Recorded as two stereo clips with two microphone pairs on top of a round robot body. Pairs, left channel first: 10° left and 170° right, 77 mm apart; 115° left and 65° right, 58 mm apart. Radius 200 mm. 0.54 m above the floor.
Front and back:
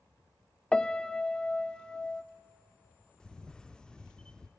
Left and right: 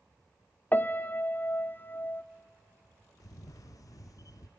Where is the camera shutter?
90° left, 0.6 m.